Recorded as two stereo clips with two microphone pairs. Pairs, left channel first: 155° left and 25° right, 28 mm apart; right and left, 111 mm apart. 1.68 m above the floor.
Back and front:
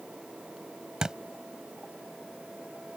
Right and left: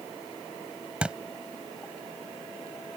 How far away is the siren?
No siren in this recording.